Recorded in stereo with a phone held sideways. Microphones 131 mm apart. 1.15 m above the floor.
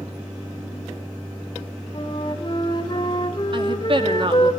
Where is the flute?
35° left (ahead or behind), 2 m.